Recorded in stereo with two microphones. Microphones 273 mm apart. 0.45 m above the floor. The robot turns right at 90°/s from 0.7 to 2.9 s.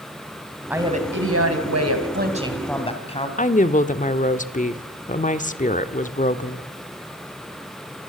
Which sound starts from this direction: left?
A woman speaking, at 3.4 s.